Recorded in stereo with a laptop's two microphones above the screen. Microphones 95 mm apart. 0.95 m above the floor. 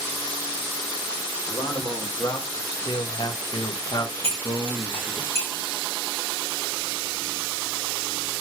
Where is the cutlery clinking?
85° right, 3 m.